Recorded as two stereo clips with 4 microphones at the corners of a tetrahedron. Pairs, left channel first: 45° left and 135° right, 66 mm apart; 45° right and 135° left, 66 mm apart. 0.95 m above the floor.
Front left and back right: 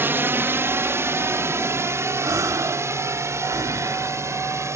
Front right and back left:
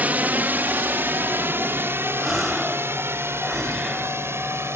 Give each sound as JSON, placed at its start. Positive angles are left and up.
{"t": 0.0, "sound": "a drone", "azimuth_deg": -170}
{"t": 2.2, "sound": "a gasp", "azimuth_deg": -135}